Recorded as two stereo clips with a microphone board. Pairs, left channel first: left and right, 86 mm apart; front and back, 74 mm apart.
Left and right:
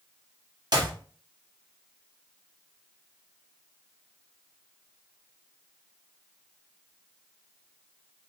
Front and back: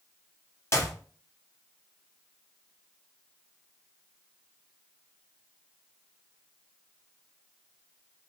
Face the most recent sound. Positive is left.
turn(degrees=-55)